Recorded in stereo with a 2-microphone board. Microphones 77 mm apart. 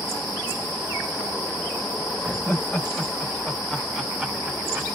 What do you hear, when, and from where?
2.2 s laughter: 30° left (ahead or behind), 1.7 m; by 5.0 s 20° right (ahead or behind), 1.5 m